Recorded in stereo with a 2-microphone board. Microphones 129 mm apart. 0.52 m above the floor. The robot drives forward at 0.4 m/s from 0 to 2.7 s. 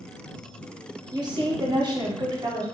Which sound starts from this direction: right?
A woman speaking, at 1.1 s.